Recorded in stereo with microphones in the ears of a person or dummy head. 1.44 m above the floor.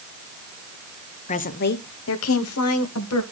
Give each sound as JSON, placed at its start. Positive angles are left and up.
{"t": 1.3, "sound": "a woman speaking", "side_deg": 35, "distance_m": 0.8}